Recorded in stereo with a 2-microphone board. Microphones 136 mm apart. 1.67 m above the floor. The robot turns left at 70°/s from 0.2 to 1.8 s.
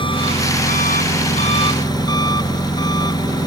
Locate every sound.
0.0 s an engine running: 140° left; by 3.5 s 30° left